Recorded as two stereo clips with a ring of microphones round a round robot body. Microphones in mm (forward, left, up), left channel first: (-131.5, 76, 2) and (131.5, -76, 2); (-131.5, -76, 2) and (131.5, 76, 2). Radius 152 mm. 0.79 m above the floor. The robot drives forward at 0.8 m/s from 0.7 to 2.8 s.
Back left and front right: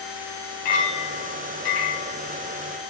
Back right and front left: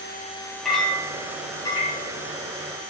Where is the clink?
120° left, 3 m; by 2.1 s 135° left, 4 m.